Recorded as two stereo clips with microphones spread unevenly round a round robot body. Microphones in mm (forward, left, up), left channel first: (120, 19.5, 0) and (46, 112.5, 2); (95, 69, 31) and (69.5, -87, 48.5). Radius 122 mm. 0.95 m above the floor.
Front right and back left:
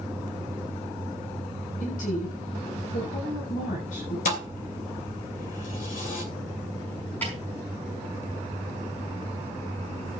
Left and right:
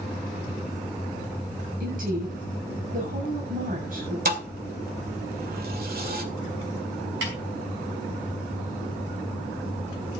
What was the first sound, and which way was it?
A woman speaking, 70° right.